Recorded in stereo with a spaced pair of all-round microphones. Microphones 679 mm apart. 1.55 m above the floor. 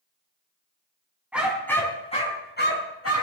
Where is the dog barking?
Centre (ahead or behind), 4 m; by 3.2 s 20° left (ahead or behind), 4.5 m.